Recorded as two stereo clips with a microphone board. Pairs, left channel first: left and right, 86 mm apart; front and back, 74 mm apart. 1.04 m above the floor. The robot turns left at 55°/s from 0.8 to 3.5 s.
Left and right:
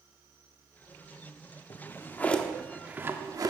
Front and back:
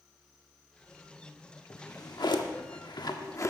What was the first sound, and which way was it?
A drawer, 50° left.